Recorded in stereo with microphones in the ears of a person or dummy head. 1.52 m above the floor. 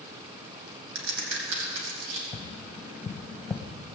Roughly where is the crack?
Right.